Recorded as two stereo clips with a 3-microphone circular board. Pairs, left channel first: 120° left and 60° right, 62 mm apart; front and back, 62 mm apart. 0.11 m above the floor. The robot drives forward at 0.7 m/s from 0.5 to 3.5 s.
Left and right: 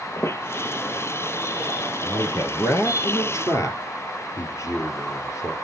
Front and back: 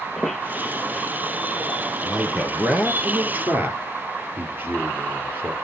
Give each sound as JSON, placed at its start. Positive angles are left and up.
{"t": 0.2, "sound": "a squeak", "azimuth_deg": 85, "distance_m": 1.9}
{"t": 2.0, "sound": "a man speaking", "azimuth_deg": 100, "distance_m": 2.0}